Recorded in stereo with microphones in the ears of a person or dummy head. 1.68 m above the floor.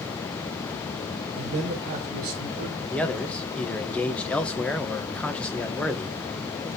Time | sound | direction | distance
1.4 | a man speaking | 35° right (ahead or behind) | 1.1 m
2.9 | a man speaking | 5° left (ahead or behind) | 0.6 m